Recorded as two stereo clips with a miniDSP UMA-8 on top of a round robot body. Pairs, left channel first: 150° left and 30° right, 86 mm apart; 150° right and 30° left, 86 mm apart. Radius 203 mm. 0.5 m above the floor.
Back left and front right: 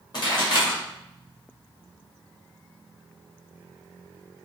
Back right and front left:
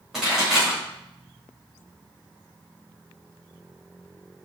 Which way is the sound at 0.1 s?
115° left.